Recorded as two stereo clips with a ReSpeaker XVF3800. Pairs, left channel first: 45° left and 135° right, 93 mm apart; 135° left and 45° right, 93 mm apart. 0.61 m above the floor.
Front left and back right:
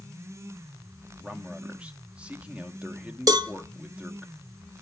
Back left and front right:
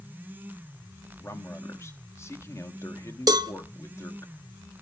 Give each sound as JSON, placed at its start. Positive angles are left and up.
{"t": 1.2, "sound": "a man speaking", "azimuth_deg": 160, "distance_m": 0.9}
{"t": 3.3, "sound": "a cowbell", "azimuth_deg": -90, "distance_m": 0.6}